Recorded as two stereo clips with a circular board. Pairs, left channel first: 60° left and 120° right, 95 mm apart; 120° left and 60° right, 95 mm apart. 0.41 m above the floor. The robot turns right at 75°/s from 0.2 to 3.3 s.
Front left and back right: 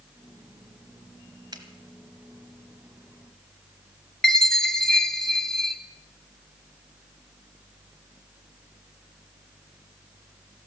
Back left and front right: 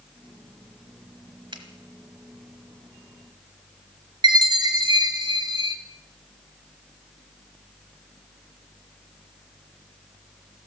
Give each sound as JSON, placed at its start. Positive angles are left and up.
{"t": 1.5, "sound": "a finger snap", "azimuth_deg": -85, "distance_m": 1.6}
{"t": 4.2, "sound": "a chime", "azimuth_deg": -25, "distance_m": 1.1}